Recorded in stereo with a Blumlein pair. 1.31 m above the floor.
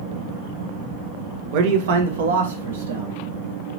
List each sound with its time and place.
1.5 s a man speaking: 45° right, 0.8 m; by 3.2 s 70° right, 1.5 m